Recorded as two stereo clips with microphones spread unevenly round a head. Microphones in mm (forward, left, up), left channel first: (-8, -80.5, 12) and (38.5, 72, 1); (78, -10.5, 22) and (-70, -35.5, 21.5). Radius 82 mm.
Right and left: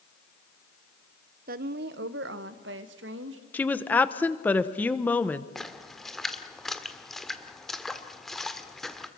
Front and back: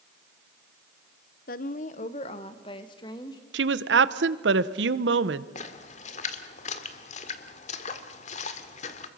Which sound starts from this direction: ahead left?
A woman speaking, at 1.5 s.